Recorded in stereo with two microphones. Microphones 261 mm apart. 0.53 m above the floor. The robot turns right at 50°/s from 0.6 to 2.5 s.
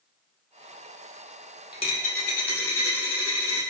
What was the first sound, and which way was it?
A dropped coin, 20° left.